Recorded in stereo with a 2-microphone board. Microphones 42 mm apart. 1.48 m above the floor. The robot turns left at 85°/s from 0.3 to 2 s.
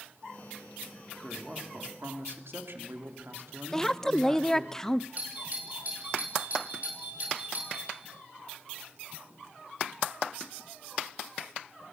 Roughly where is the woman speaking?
Centre.